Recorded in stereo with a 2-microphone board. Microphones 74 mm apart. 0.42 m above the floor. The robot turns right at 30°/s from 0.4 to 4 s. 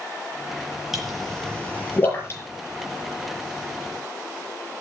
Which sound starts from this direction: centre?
A pop, at 0.9 s.